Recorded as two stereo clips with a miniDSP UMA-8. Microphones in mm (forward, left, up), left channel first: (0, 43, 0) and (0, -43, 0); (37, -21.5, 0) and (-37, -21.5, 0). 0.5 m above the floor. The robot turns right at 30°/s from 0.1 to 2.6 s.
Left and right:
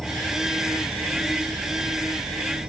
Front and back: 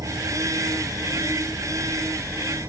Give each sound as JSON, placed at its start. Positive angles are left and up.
{"t": 0.0, "sound": "an insect", "azimuth_deg": 175}